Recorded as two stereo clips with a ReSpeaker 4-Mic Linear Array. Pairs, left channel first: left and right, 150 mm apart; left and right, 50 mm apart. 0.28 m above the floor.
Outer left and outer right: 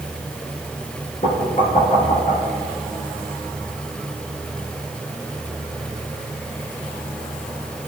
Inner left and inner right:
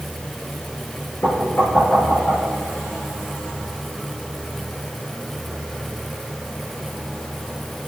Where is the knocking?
50° left (ahead or behind), 4.5 m.